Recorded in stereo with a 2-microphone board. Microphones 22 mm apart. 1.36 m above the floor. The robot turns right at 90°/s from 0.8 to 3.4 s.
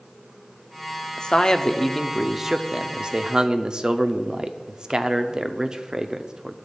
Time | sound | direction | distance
1.2 | a man speaking | 90° left | 0.5 m